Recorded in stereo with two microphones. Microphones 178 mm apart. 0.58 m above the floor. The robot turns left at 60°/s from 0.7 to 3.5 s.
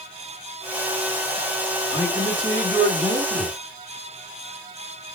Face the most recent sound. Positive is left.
turn(degrees=-70)